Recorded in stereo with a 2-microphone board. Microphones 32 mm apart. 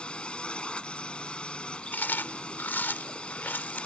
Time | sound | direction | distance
0.0 | a drone | 35° left (ahead or behind) | ?
1.9 | chewing | 85° left | ?